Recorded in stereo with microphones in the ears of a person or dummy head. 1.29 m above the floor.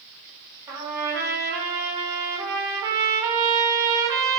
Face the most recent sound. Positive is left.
turn(degrees=-20)  # may be behind; listen again after turning